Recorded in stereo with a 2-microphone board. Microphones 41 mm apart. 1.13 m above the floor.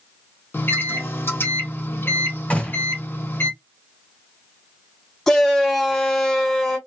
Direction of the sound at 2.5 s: 35° left (ahead or behind).